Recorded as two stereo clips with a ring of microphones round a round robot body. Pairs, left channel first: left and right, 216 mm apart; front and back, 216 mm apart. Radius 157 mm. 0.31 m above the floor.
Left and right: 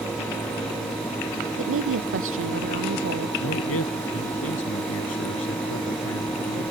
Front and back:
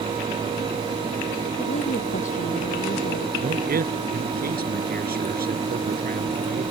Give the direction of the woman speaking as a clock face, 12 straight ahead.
2 o'clock.